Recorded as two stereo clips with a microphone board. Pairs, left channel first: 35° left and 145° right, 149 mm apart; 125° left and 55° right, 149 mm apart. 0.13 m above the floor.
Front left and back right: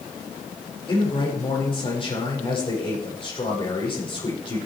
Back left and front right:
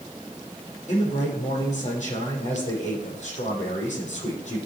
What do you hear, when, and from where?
0.9 s a man speaking: 85° left, 5.5 m